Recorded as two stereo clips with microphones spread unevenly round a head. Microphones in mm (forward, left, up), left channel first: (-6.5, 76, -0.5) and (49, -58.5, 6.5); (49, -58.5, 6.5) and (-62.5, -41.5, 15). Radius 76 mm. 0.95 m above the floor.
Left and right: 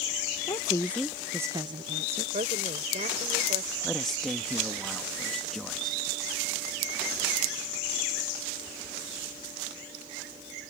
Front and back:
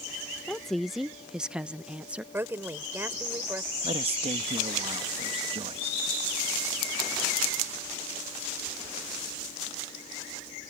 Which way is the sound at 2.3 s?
120° right.